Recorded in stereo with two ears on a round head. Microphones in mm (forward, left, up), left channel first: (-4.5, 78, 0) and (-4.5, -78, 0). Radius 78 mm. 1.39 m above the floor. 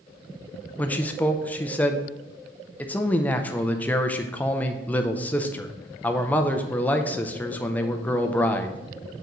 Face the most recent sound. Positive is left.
turn(degrees=10)  # may be behind; listen again after turning